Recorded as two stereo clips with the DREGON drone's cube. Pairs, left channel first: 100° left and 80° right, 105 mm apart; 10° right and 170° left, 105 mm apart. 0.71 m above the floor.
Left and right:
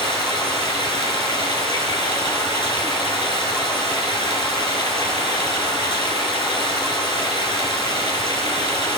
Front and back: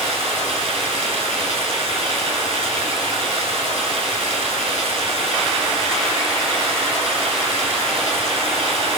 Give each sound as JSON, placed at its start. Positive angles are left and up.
{"t": 0.0, "sound": "running water", "azimuth_deg": 145, "distance_m": 5.0}